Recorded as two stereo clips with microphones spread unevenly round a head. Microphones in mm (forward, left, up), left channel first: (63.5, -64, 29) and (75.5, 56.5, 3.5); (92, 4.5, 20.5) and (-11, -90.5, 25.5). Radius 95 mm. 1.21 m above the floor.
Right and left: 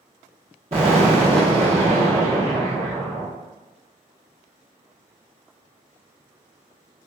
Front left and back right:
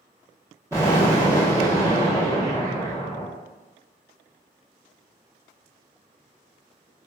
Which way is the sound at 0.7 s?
150° left.